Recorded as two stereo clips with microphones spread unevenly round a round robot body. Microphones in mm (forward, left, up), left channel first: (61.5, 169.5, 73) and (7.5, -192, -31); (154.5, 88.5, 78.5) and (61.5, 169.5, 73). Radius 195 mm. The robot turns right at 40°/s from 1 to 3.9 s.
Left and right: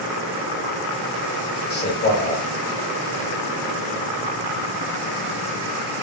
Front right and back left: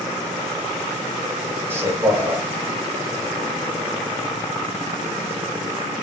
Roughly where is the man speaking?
Behind left.